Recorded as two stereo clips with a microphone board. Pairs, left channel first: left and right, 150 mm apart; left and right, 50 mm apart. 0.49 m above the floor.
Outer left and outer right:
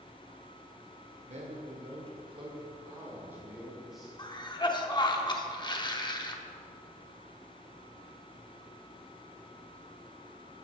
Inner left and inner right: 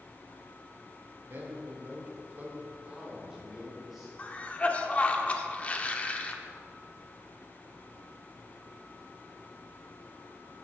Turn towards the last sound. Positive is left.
turn(degrees=30)  # may be behind; listen again after turning